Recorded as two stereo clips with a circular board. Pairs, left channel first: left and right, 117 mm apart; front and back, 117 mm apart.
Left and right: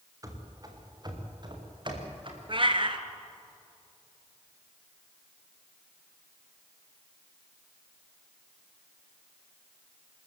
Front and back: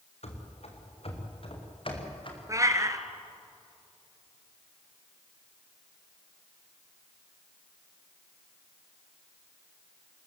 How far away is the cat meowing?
About 1.3 m.